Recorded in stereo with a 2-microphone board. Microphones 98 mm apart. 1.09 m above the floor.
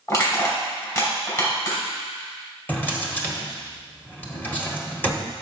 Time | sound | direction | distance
0.1 | crushing | 35° left (ahead or behind) | 4 m
2.7 | a drawer | 20° left (ahead or behind) | 1.4 m